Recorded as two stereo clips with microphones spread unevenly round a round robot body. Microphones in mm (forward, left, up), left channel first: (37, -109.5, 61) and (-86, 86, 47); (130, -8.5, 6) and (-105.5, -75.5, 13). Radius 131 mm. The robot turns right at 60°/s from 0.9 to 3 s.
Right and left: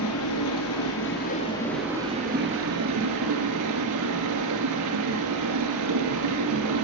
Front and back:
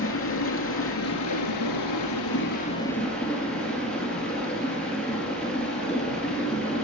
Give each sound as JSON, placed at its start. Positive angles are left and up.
{"t": 0.0, "sound": "running water", "azimuth_deg": -25, "distance_m": 2.5}